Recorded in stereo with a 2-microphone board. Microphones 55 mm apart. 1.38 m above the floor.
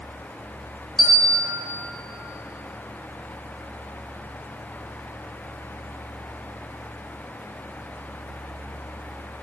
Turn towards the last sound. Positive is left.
turn(degrees=-5)  # may be behind; listen again after turning